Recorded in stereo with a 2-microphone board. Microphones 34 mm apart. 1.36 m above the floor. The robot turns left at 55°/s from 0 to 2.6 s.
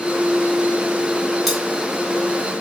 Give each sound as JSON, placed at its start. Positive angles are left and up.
{"t": 1.5, "sound": "cutlery clinking", "side_deg": 0, "distance_m": 0.9}